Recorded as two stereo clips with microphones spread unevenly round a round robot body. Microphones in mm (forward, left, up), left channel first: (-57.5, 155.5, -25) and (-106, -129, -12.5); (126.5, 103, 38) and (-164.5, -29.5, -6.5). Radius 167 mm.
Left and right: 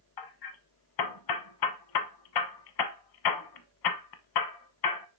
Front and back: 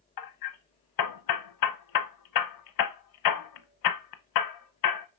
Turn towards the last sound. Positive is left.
turn(degrees=50)